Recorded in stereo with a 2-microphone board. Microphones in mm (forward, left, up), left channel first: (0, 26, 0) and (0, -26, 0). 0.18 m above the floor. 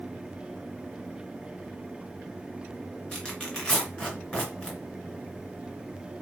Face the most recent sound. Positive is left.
turn(degrees=20)  # may be behind; listen again after turning